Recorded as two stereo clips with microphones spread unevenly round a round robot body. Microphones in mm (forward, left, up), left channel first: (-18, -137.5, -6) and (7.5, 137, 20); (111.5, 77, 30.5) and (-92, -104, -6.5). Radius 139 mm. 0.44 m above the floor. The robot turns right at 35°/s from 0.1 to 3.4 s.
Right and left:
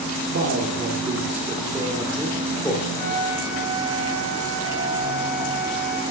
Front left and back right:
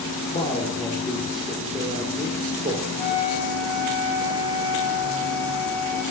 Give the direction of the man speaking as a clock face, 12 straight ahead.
8 o'clock.